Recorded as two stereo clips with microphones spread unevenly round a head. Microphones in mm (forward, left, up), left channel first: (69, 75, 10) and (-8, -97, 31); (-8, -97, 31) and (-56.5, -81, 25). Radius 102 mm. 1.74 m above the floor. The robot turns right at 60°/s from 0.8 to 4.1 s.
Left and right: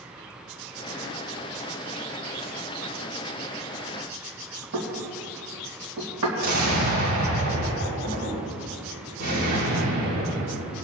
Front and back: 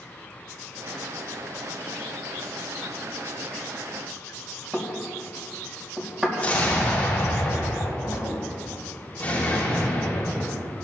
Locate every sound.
4.7 s knocking: 120° right, 2.5 m
6.4 s an explosion: 80° right, 6.5 m